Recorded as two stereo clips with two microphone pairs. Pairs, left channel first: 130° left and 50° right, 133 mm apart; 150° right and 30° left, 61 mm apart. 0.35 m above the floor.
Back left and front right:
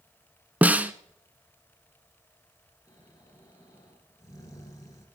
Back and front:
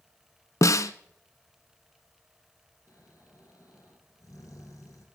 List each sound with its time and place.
0.6 s a snare drum: 125° right, 0.6 m
2.9 s snoring: 165° right, 3 m